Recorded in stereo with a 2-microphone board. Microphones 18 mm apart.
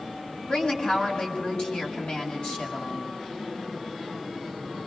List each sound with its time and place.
0.5 s a woman speaking: 65° left (ahead or behind), 6.5 m